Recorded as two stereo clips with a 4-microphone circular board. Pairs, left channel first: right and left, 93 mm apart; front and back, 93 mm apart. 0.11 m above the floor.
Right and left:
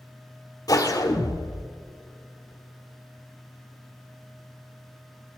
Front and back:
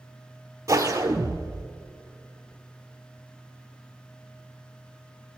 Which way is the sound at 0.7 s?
130° right.